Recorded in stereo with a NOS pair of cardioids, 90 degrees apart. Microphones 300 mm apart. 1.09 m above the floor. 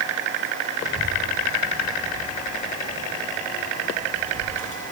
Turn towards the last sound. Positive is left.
turn(degrees=-20)